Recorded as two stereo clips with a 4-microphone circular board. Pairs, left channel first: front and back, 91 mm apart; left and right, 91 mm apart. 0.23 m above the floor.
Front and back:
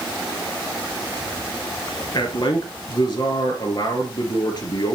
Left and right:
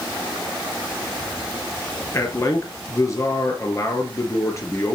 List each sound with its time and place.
2.1 s a man speaking: 35° left, 3 m